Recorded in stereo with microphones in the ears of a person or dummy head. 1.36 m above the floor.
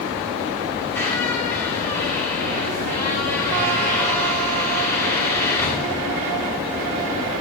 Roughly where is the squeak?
Centre.